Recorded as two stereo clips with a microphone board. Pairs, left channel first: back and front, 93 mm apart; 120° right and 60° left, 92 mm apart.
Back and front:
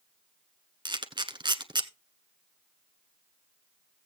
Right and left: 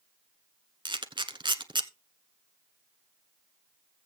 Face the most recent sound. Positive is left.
turn(degrees=30)